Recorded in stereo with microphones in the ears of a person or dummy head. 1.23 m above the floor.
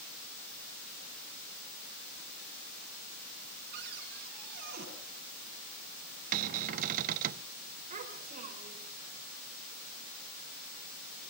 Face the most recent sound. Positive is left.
turn(degrees=-45)  # may be behind; listen again after turning